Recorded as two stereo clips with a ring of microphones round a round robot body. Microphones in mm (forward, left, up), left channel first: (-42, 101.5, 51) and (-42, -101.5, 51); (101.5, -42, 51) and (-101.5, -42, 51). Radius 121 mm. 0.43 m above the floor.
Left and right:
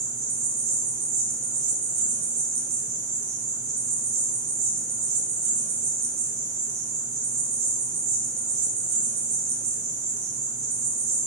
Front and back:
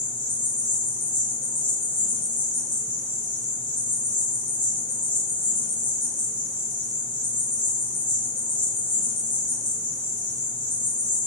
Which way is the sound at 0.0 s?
65° right.